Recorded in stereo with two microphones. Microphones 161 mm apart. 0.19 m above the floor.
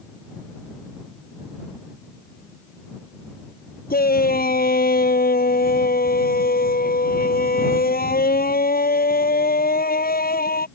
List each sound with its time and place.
3.9 s a shout: 70° left (ahead or behind)